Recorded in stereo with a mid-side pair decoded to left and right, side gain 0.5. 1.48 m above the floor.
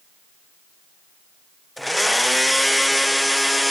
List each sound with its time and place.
1.8 s a blender: 5° left, 0.6 m